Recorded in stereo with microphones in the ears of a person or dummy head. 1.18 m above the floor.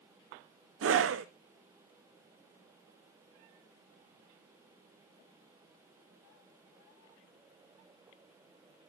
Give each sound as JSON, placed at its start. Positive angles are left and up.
{"t": 0.8, "sound": "a scream", "side_deg": -65, "distance_m": 0.6}